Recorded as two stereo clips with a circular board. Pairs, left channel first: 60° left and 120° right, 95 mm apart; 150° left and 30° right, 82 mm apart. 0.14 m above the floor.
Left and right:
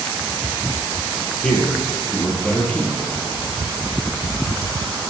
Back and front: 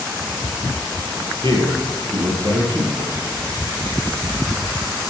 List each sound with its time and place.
1.4 s a man speaking: 20° right, 3.5 m